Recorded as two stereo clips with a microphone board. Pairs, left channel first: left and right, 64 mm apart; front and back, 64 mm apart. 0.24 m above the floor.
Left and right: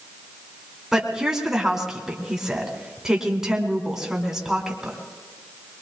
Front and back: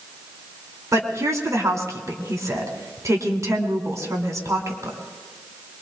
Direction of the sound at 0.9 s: 170° right.